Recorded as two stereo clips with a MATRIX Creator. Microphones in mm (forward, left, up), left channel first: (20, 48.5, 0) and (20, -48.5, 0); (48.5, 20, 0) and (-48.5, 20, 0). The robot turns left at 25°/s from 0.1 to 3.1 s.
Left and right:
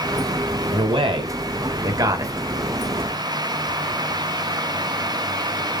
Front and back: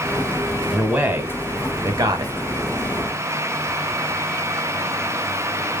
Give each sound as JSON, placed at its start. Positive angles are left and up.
{"t": 0.7, "sound": "a man speaking", "azimuth_deg": -100, "distance_m": 2.0}